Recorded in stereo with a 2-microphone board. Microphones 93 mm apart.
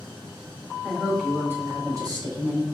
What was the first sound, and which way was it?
A woman speaking, 5° left (ahead or behind).